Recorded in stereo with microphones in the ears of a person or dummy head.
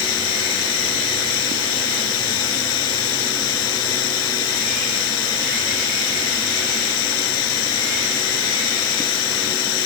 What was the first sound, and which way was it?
Running water, 80° left.